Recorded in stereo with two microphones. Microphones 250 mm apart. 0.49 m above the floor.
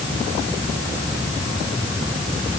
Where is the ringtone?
No ringtone in this recording.